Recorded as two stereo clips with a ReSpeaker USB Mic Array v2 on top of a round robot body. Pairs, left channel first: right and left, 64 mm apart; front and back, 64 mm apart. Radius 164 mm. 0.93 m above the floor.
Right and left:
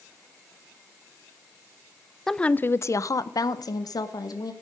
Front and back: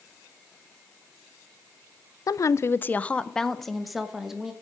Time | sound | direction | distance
2.3 | a woman speaking | 5° right | 0.6 m